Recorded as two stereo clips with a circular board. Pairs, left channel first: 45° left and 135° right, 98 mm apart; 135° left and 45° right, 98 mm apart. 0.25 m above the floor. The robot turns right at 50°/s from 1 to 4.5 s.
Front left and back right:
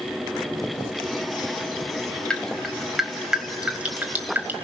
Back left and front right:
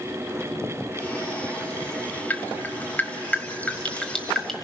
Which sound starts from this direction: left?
Dripping, at 2.3 s.